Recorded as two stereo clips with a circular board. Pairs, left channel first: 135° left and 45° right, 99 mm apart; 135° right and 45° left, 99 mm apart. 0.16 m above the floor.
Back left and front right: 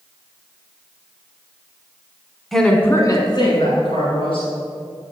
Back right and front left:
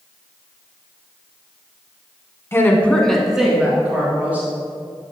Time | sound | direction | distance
2.5 | a woman speaking | 140° right | 1.1 m